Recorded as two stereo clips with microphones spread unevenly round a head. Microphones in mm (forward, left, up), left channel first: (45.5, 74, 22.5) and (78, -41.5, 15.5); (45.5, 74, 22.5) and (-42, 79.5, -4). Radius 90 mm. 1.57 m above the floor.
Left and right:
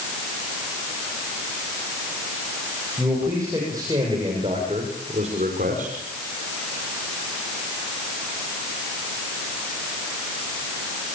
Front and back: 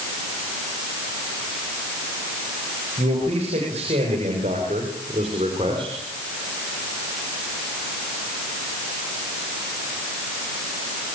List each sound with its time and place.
3.0 s a man speaking: 155° right, 8 m; by 6.0 s 120° right, 5 m